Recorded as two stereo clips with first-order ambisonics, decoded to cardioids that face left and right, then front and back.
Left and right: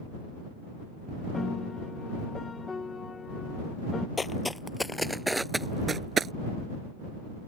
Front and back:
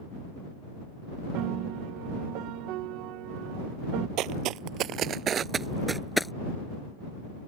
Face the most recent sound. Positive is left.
turn(degrees=-75)